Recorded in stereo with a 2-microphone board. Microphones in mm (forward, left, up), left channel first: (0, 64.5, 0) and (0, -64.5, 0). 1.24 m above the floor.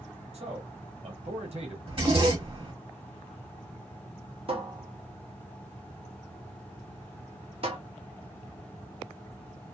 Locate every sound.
0.3 s a man speaking: 50° right (ahead or behind), 1.2 m
1.9 s a zipper: 45° right (ahead or behind), 1.1 m
4.5 s a cupboard door: 45° right (ahead or behind), 0.7 m